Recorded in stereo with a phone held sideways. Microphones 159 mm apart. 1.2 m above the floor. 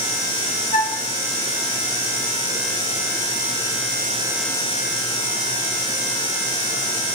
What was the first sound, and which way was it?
A flute, 55° left (ahead or behind).